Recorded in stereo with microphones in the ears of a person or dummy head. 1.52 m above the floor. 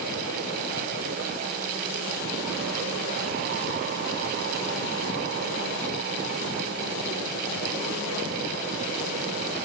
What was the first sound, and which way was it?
Only background noise.